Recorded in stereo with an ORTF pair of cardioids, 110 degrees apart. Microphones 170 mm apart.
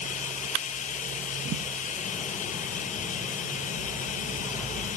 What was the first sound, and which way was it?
Running water, 50° left.